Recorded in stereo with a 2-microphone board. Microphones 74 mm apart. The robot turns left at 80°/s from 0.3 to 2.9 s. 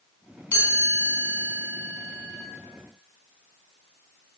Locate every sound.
0.5 s a chime: 20° left (ahead or behind), 0.9 m; by 2.4 s 10° right (ahead or behind), 0.9 m